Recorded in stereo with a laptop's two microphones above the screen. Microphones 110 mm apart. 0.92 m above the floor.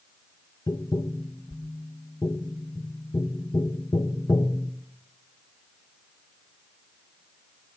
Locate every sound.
0.7 s tapping: 40° left (ahead or behind), 0.7 m